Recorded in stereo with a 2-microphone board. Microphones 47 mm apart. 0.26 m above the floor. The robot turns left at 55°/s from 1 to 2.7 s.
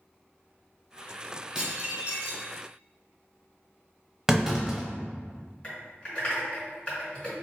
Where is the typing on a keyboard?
20° left (ahead or behind), 1.8 m.